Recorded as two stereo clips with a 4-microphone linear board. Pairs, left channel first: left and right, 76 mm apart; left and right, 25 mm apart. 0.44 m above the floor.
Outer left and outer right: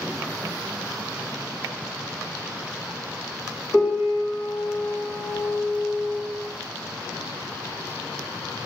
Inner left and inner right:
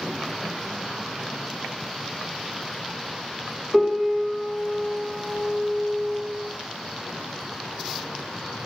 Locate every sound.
3.7 s a piano: 35° left (ahead or behind), 2 m